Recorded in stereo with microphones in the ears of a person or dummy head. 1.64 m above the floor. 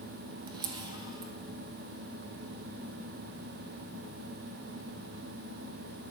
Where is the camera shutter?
25° right (ahead or behind), 1.1 m.